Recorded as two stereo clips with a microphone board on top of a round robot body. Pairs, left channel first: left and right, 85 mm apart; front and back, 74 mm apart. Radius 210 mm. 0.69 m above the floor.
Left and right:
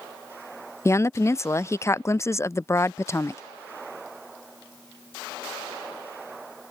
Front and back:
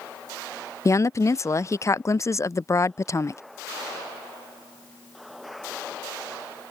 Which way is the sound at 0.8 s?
40° left.